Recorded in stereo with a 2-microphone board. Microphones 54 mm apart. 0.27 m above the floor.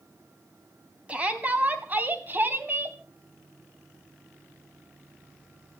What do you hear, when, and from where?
1.1 s a shout: 25° right (ahead or behind), 2.5 m; by 3.0 s 45° right (ahead or behind), 2 m